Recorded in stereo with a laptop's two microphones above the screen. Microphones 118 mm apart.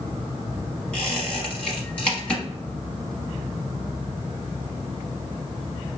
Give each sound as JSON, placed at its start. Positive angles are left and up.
{"t": 0.9, "sound": "a squeak", "side_deg": 10, "distance_m": 1.0}